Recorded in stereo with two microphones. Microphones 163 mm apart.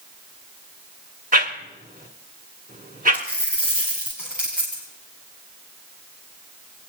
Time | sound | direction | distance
1.3 | a whoosh | 55° right (ahead or behind) | 1.5 m
3.1 | a dropped coin | 5° right (ahead or behind) | 5.5 m